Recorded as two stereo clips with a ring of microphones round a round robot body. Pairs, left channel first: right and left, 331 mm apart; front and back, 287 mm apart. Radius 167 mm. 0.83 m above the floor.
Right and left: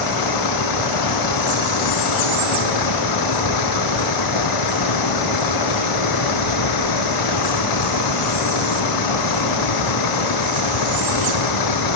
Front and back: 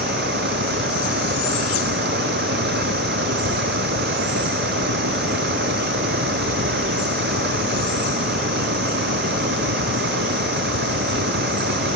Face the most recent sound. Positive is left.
turn(degrees=-115)